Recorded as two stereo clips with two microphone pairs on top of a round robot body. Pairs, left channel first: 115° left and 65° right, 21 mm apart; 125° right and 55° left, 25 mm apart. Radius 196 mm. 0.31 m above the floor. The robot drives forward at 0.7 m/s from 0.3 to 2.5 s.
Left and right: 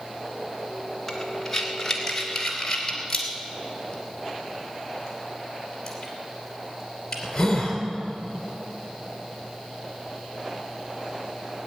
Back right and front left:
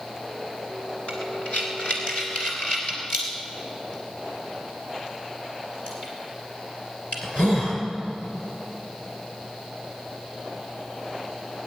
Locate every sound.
1.1 s breathing: 160° right, 1.8 m; by 7.8 s 170° right, 3 m